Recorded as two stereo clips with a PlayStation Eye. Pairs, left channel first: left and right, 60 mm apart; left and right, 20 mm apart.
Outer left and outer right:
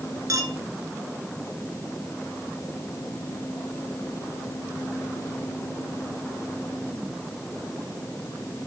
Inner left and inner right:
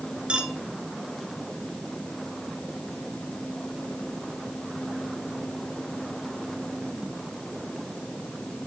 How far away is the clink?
About 1.2 m.